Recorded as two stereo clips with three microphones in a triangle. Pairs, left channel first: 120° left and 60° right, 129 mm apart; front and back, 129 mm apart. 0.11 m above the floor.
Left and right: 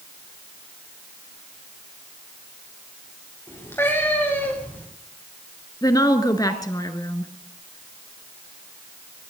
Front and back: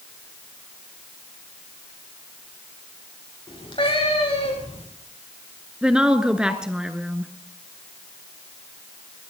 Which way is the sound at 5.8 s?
105° left.